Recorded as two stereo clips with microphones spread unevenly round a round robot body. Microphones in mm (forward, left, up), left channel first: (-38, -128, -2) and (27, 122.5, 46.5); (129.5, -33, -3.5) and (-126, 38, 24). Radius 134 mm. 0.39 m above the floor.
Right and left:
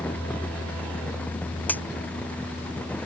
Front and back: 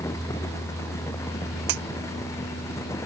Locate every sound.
1.7 s a crack: 170° left